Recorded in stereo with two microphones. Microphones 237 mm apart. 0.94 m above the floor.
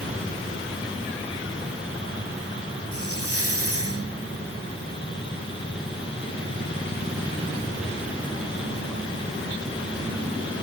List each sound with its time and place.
2.9 s a hiss: 70° right (ahead or behind)